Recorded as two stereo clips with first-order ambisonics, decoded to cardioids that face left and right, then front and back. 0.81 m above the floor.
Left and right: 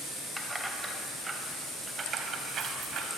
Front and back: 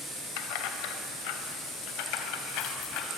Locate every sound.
0.4 s keys jangling: straight ahead, 3 m; by 3.1 s 35° right, 4 m